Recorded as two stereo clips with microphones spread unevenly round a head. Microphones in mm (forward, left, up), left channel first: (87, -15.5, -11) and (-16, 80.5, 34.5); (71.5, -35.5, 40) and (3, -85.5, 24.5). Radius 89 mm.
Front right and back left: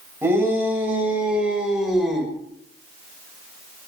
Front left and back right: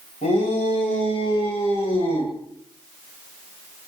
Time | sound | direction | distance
0.2 | a shout | 65° left | 7.5 m